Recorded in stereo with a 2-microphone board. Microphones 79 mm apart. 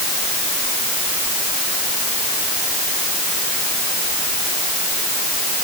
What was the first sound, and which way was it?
Only background noise.